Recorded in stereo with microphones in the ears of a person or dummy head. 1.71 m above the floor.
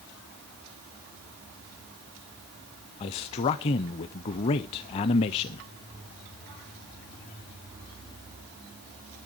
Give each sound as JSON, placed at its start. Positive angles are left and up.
{"t": 3.0, "sound": "a man speaking", "side_deg": 30, "distance_m": 0.6}